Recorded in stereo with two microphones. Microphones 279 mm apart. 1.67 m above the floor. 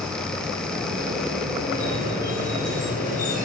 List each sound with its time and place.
1.7 s a squeak: 30° right (ahead or behind), 3 m